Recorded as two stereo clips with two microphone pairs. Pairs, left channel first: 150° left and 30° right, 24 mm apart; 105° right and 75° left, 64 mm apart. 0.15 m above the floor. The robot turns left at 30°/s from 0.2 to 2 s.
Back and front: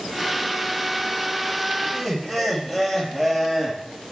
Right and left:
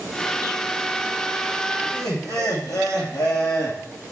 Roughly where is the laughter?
Right.